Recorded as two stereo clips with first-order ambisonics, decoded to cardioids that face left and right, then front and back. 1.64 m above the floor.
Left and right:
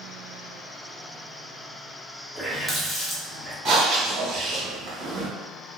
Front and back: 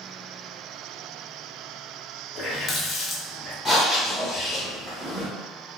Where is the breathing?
95° right, 1.5 m.